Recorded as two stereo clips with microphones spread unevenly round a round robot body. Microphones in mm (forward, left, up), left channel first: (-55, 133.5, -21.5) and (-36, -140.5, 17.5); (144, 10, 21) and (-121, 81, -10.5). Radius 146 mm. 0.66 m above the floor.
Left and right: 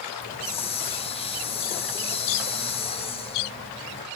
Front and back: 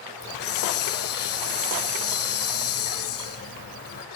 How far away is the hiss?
About 2.0 m.